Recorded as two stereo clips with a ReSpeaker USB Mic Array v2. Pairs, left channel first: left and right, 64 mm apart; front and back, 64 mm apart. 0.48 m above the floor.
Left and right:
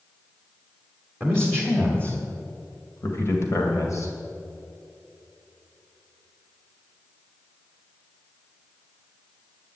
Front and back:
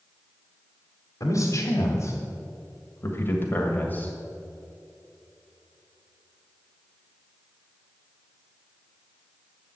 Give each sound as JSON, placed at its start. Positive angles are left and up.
{"t": 1.2, "sound": "a man speaking", "azimuth_deg": 10, "distance_m": 1.9}